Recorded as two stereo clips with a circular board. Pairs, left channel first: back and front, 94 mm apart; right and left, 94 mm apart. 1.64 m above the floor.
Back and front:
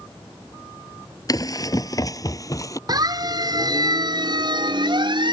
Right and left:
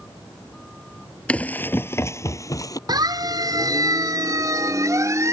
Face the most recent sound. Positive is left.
turn(degrees=30)